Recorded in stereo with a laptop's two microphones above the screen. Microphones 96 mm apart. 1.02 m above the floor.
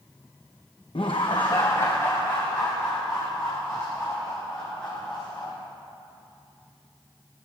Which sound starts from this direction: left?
Laughter, at 0.9 s.